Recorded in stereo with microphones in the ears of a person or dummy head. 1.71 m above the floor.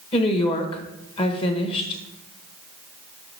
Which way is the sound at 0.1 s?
30° left (ahead or behind).